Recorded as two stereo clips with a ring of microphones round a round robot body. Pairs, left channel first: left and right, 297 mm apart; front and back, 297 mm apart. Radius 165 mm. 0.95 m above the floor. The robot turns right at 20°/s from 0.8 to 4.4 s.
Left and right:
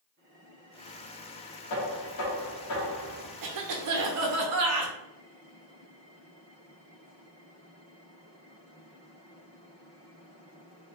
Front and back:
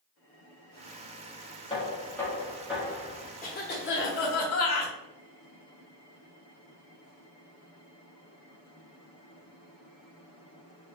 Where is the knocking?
75° left, 1.6 m; by 3.3 s 105° left, 1.6 m.